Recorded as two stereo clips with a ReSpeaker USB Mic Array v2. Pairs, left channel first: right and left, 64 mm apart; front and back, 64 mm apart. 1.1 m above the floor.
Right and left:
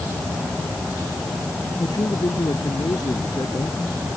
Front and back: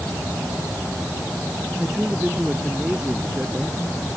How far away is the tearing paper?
No tearing paper in this recording.